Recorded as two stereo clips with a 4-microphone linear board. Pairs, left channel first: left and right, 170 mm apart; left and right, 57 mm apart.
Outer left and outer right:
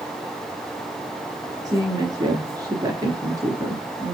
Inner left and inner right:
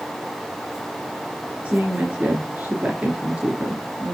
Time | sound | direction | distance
1.6 | a woman speaking | 25° right (ahead or behind) | 3 m